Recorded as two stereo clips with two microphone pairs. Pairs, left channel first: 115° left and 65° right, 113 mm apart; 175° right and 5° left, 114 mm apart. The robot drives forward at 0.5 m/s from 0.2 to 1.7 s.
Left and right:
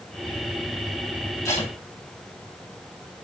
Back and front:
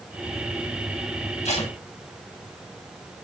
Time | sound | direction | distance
1.4 | tape being pulled | 175° left | 9 m